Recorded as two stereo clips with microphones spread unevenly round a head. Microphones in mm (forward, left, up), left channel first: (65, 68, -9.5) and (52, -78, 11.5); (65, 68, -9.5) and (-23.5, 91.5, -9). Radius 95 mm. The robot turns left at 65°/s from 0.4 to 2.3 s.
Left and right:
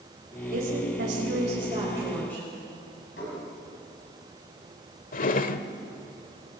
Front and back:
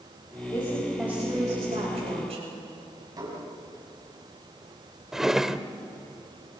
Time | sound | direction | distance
0.5 | a woman speaking | 75° right | 6.5 m
3.2 | dishes clattering | 125° left | 6 m
5.1 | a drawer | 80° left | 1.0 m